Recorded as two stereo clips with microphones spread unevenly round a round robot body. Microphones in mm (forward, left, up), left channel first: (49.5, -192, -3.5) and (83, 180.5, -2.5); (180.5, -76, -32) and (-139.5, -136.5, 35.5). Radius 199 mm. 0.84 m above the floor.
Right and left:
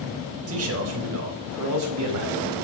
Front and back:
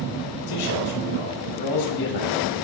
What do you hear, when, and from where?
0.5 s a man speaking: 30° left, 4.5 m; by 2.5 s 45° left, 5.5 m